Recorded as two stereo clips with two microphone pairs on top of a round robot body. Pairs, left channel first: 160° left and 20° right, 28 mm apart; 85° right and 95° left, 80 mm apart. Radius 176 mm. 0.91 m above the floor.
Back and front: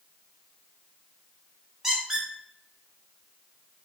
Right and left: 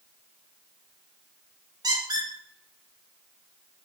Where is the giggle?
No giggle in this recording.